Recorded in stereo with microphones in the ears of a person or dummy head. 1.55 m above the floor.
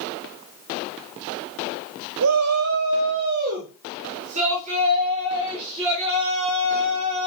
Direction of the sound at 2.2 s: 85° right.